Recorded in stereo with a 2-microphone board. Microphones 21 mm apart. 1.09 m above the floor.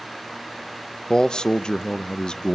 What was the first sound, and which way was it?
A man speaking, 40° left (ahead or behind).